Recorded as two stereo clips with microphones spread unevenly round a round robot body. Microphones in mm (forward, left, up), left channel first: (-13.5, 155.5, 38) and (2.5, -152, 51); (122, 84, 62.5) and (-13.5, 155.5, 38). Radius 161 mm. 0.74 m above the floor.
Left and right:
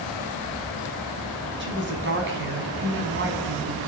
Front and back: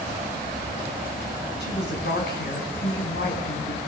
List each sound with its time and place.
1.6 s a woman speaking: 30° right, 5.5 m